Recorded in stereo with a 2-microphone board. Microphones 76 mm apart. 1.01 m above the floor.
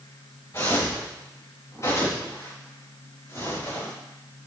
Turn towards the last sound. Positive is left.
turn(degrees=40)  # may be behind; listen again after turning